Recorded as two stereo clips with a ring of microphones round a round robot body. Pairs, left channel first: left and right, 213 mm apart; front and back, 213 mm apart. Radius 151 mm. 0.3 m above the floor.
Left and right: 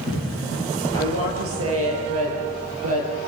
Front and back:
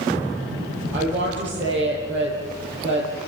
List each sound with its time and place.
0.9 s a woman speaking: 95° right, 7 m